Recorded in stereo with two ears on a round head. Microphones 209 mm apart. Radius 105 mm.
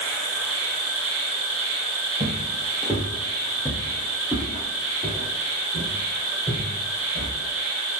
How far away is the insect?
About 0.9 m.